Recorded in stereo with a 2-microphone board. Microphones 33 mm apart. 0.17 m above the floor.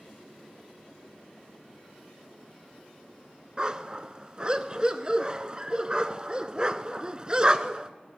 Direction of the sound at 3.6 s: 25° right (ahead or behind).